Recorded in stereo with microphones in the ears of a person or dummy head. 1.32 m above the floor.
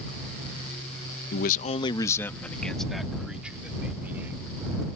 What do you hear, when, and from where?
1.3 s a man speaking: 60° left (ahead or behind); by 4.7 s 15° right (ahead or behind)